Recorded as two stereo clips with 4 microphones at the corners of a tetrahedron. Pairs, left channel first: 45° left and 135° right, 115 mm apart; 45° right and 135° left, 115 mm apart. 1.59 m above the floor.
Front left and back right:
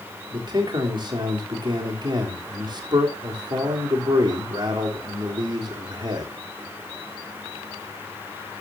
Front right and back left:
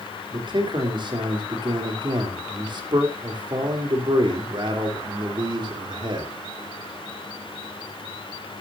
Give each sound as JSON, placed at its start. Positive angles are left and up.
{"t": 0.3, "sound": "a man speaking", "azimuth_deg": 180, "distance_m": 3.5}